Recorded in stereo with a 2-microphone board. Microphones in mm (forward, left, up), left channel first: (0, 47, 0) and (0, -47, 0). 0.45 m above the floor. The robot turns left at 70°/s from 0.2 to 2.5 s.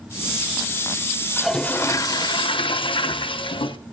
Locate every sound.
1.4 s a toilet flushing: 175° right, 0.6 m; by 3.8 s 105° left, 0.6 m